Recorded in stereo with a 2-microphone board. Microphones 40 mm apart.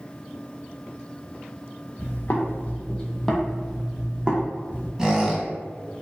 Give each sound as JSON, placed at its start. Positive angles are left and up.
{"t": 2.0, "sound": "footsteps", "side_deg": 65, "distance_m": 0.8}
{"t": 5.0, "sound": "a squeak", "side_deg": -15, "distance_m": 0.8}